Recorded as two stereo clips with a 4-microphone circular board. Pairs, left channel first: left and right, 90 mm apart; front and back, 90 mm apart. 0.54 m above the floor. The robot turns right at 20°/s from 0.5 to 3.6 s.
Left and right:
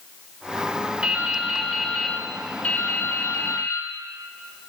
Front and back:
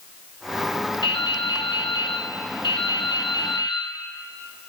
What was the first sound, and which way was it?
Dripping, 15° right.